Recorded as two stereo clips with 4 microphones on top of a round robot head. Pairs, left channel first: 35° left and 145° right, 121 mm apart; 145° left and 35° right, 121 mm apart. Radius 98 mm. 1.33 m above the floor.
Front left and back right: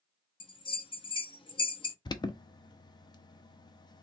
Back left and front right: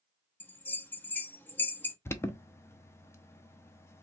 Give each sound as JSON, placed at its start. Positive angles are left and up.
{"t": 0.4, "sound": "a bell", "azimuth_deg": 70, "distance_m": 0.7}
{"t": 2.0, "sound": "an alarm", "azimuth_deg": 80, "distance_m": 0.6}